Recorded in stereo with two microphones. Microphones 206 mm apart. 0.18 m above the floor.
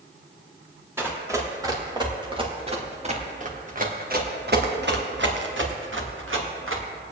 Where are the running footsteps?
10° right (ahead or behind), 3.5 m; by 6.8 s 80° right, 3 m.